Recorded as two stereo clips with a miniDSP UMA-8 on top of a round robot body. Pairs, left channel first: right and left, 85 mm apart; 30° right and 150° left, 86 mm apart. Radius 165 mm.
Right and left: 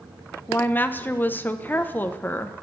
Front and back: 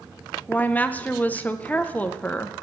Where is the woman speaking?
70° right, 0.5 m.